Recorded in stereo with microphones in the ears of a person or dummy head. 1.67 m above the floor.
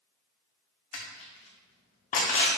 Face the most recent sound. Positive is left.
turn(degrees=40)  # may be behind; listen again after turning